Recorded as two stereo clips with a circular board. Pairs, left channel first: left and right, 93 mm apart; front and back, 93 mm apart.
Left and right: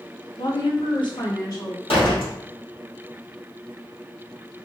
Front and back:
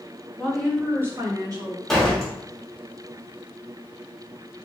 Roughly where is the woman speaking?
Left.